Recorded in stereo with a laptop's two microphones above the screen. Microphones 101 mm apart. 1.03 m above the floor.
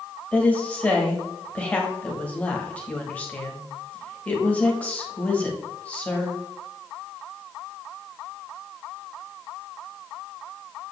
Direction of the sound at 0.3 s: 15° left (ahead or behind).